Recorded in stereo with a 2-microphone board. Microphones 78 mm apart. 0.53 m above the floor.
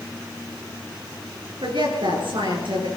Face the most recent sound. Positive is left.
turn(degrees=-80)